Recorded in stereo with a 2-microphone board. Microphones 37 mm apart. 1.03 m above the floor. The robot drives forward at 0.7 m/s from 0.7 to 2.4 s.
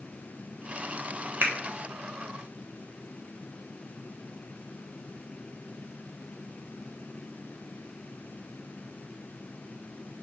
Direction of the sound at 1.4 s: 55° right (ahead or behind).